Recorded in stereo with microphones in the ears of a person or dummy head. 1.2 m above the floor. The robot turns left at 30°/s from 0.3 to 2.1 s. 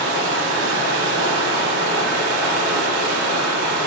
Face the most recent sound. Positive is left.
turn(degrees=-120)